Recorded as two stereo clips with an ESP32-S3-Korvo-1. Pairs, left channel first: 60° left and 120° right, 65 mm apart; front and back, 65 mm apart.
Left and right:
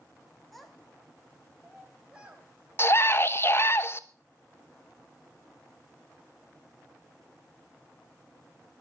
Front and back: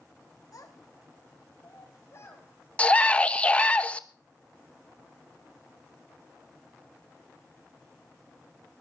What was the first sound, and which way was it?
A child speaking, 30° right.